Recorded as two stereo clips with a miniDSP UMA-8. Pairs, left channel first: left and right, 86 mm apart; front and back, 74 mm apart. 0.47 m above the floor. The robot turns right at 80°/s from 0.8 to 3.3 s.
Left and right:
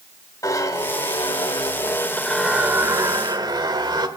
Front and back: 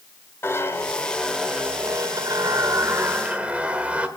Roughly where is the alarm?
I don't hear an alarm.